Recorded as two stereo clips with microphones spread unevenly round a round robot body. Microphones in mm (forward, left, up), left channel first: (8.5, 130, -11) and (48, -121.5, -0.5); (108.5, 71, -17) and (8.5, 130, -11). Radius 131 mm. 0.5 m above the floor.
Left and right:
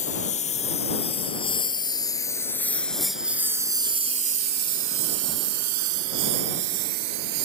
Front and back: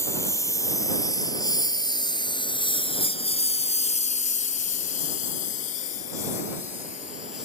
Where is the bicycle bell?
I don't hear a bicycle bell.